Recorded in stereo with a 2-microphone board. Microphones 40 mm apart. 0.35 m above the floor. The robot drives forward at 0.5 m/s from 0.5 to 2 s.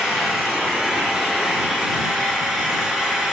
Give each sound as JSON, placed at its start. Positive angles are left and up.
{"t": 0.0, "sound": "an engine running", "side_deg": -10, "distance_m": 4.5}